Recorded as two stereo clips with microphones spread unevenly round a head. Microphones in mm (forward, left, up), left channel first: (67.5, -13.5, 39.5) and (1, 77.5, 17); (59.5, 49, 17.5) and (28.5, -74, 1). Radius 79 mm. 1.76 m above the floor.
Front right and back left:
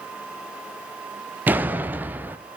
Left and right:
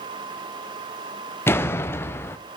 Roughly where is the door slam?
Ahead left.